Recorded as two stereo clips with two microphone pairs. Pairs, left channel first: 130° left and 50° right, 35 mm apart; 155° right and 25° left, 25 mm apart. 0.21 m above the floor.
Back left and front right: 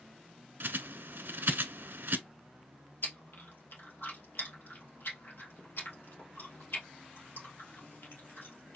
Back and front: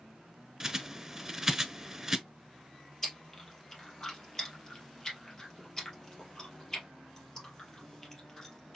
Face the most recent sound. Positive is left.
turn(degrees=130)